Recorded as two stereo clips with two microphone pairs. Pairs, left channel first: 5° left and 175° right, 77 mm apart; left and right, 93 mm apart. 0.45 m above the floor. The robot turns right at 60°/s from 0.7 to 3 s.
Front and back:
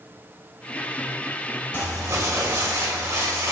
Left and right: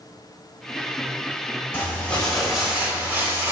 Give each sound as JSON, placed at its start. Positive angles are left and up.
{"t": 1.7, "sound": "crumpling", "azimuth_deg": 145, "distance_m": 1.3}